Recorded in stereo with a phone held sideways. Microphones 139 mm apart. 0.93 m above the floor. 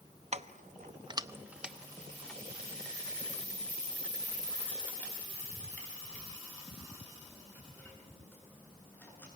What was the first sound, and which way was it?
Keys jangling, 50° right (ahead or behind).